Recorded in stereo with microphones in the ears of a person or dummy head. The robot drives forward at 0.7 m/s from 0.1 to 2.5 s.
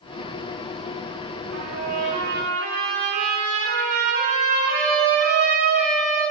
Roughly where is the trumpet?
Right.